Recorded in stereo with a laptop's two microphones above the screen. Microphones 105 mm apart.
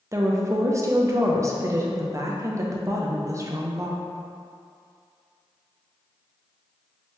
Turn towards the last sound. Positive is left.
turn(degrees=-30)  # may be behind; listen again after turning